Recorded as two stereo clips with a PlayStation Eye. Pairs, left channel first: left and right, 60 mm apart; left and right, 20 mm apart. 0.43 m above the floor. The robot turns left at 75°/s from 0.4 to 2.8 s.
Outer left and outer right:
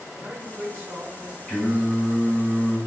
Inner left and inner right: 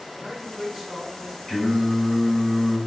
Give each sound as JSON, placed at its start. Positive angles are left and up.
{"t": 0.1, "sound": "a man speaking", "azimuth_deg": -55, "distance_m": 1.2}
{"t": 1.5, "sound": "singing", "azimuth_deg": 5, "distance_m": 1.8}